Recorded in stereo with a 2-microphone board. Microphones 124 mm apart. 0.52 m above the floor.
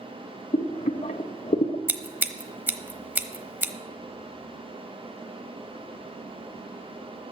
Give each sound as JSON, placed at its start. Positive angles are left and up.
{"t": 0.5, "sound": "boiling", "side_deg": 80, "distance_m": 0.6}
{"t": 1.9, "sound": "scissors", "side_deg": -15, "distance_m": 0.9}